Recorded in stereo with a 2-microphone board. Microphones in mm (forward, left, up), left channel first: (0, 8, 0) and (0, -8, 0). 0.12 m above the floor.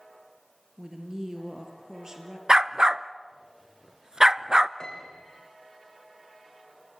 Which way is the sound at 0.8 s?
40° right (ahead or behind).